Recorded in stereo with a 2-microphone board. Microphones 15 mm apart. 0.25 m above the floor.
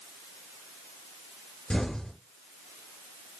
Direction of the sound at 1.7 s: 70° left (ahead or behind).